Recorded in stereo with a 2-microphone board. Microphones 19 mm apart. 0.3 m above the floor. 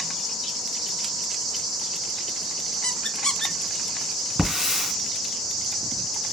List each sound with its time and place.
2.8 s a squeak: 45° left (ahead or behind), 1.0 m
4.4 s a hiss: 20° right (ahead or behind), 3 m